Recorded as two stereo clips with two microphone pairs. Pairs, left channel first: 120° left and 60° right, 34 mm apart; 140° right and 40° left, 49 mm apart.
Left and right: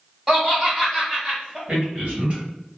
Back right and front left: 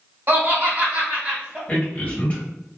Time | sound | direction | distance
0.3 | laughter | 20° left | 1.8 m
1.7 | a man speaking | 95° right | 1.5 m